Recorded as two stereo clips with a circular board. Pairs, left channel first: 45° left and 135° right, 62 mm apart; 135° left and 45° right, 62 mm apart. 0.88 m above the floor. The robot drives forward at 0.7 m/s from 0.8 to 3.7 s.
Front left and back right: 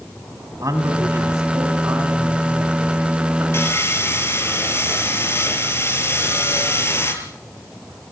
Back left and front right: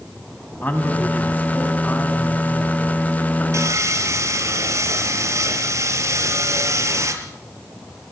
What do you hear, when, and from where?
0.6 s a man speaking: 165° right, 5 m; by 3.4 s 170° right, 7 m
3.5 s sawing: 5° right, 5.5 m